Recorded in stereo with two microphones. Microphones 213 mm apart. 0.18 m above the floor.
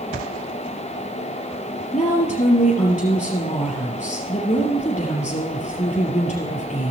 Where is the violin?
No violin in this recording.